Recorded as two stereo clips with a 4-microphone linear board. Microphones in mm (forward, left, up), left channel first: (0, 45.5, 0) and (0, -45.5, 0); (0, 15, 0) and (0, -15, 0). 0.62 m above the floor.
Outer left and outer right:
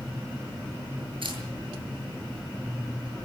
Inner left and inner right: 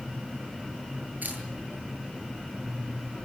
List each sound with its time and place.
1.2 s a camera shutter: 70° right (ahead or behind), 8.5 m